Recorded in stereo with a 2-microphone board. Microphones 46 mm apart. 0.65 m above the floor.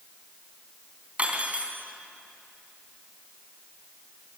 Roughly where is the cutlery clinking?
Right.